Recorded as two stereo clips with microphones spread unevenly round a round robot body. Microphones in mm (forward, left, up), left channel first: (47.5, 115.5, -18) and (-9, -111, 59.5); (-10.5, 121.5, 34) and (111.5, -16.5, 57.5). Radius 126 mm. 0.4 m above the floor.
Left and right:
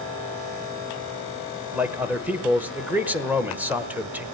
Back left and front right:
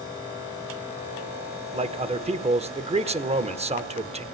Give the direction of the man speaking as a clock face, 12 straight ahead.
12 o'clock.